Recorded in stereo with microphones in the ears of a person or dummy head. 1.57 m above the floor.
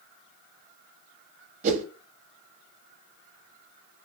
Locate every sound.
1.6 s a whoosh: 40° right (ahead or behind), 0.5 m